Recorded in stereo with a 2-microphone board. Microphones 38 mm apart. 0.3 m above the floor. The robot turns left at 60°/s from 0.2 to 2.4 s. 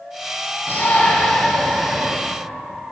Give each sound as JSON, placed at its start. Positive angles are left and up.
{"t": 0.7, "sound": "a shout", "azimuth_deg": 80, "distance_m": 3.0}